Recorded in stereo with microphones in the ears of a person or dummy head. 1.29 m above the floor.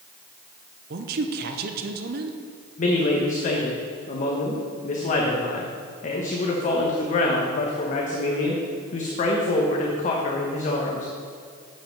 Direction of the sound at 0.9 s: 50° right (ahead or behind).